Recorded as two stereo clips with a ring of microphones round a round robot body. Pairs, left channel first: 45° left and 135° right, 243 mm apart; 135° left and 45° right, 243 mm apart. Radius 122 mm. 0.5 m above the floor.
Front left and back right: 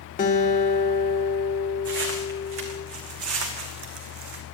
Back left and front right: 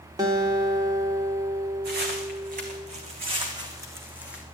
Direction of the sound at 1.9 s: 90° right.